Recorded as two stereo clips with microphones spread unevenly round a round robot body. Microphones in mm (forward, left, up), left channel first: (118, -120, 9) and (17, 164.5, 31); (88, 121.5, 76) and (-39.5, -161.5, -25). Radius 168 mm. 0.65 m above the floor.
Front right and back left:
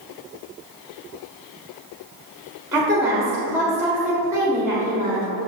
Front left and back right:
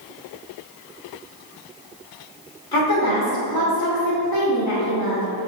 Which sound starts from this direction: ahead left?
A woman speaking, at 2.7 s.